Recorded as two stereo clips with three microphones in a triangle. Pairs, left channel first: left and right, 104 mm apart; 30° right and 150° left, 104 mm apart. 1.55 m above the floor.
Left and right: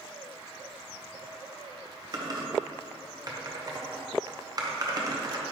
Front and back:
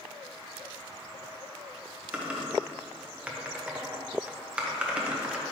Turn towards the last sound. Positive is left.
turn(degrees=-130)